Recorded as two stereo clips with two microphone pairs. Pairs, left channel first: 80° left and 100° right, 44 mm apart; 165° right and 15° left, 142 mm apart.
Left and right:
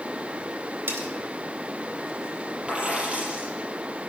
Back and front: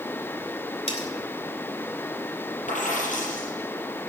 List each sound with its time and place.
0.9 s cutlery clinking: 125° right, 2.5 m
2.7 s a dropped coin: 165° right, 6 m